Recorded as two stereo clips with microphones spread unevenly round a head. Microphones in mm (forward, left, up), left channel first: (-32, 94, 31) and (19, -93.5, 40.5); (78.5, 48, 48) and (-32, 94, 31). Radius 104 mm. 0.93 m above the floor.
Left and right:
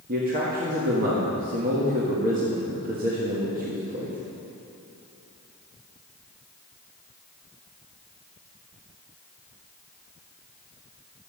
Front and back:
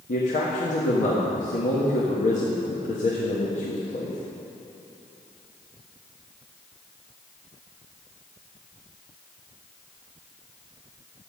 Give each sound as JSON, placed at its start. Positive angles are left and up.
{"t": 0.1, "sound": "a man speaking", "azimuth_deg": -30, "distance_m": 1.4}